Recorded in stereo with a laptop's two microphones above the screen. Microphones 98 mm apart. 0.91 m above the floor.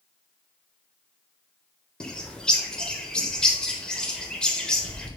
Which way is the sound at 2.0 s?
10° left (ahead or behind).